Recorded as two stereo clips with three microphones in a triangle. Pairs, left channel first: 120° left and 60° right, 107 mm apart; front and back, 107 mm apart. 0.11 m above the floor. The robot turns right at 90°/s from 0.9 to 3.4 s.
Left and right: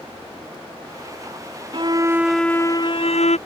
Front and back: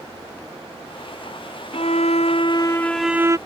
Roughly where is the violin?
Ahead right.